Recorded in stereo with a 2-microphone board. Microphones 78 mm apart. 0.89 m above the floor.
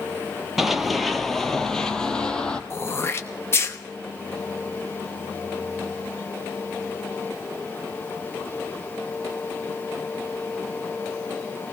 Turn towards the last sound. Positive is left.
turn(degrees=30)  # may be behind; listen again after turning